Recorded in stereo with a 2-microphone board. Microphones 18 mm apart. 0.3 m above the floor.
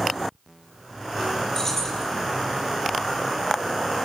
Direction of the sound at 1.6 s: 20° left (ahead or behind).